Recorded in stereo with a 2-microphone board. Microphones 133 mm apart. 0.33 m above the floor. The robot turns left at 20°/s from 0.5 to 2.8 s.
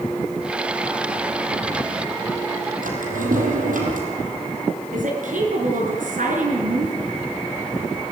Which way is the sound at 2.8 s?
85° right.